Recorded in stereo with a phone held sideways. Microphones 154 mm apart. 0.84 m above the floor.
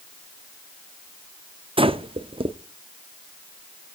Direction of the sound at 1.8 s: 35° right (ahead or behind).